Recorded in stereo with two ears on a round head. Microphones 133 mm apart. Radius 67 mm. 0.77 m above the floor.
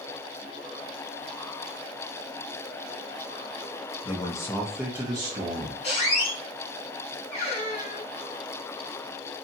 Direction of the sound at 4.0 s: 35° left (ahead or behind).